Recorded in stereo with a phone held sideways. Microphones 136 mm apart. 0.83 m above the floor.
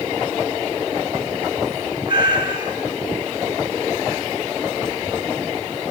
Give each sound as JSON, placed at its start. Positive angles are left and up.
{"t": 2.1, "sound": "a cat meowing", "side_deg": -35, "distance_m": 6.0}